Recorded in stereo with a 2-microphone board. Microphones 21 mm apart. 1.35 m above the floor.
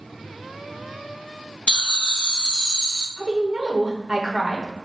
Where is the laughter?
50° left (ahead or behind), 0.6 m; by 3.1 s 35° left (ahead or behind), 0.8 m.